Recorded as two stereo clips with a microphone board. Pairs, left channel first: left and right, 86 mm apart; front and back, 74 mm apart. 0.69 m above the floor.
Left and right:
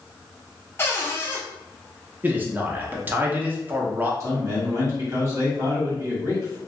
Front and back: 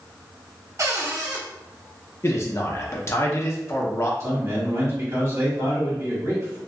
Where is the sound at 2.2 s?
30° right, 0.6 m.